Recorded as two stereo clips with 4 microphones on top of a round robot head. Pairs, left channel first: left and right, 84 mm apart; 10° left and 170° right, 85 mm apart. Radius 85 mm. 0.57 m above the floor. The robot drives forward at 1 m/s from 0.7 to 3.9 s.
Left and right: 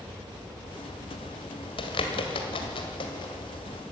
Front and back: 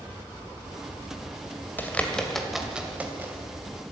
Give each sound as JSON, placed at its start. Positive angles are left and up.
{"t": 1.8, "sound": "a bird", "azimuth_deg": 75, "distance_m": 1.9}